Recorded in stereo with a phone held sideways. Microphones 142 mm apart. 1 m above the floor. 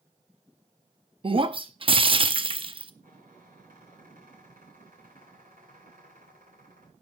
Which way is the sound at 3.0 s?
75° right (ahead or behind).